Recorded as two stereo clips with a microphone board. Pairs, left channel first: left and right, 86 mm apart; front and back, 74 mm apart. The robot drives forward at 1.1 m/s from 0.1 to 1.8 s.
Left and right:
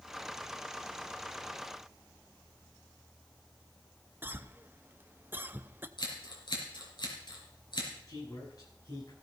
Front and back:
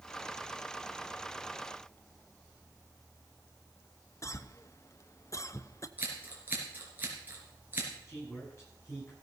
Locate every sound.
4.2 s a cough: 30° right, 0.7 m
6.0 s scissors: 115° left, 4 m
8.1 s a man speaking: 50° left, 10 m